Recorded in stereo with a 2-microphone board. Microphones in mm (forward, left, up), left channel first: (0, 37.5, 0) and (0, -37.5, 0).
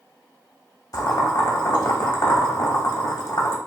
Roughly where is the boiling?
Left.